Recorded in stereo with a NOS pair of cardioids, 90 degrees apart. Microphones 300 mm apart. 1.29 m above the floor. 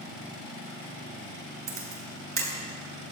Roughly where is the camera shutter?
Ahead right.